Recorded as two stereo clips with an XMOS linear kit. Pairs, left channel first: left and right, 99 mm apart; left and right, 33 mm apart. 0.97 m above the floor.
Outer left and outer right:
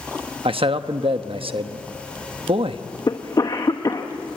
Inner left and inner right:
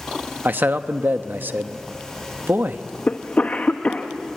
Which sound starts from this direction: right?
A man speaking, at 0.5 s.